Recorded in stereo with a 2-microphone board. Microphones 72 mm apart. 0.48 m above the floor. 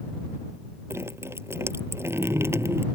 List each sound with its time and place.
0.9 s dripping: 35° right (ahead or behind)